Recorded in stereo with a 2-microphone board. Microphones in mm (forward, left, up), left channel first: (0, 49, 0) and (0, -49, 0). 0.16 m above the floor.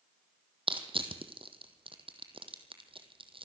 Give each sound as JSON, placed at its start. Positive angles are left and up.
{"t": 0.7, "sound": "crushing", "side_deg": -65, "distance_m": 1.8}